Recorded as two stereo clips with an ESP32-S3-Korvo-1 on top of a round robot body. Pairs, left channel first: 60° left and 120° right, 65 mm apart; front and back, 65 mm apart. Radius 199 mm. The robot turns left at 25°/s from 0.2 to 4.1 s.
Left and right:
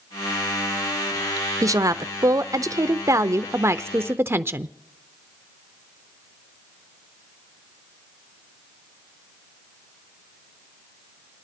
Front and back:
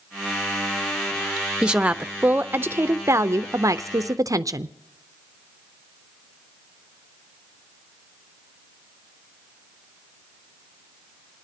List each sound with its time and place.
1.6 s a woman speaking: 105° right, 0.6 m; by 4.7 s 165° right, 0.6 m